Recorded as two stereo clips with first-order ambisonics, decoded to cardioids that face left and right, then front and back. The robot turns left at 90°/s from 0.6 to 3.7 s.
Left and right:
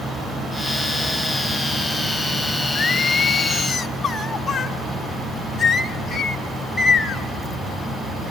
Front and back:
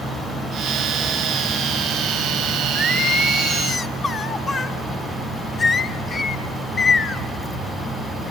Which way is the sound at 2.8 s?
115° left.